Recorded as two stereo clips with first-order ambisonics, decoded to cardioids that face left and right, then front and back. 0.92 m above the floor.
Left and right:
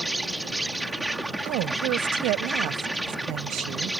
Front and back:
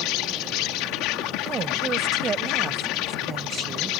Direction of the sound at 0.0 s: 5° right.